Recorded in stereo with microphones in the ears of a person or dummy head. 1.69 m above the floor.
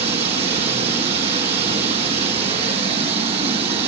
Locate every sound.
0.0 s running water: 35° right (ahead or behind), 3.5 m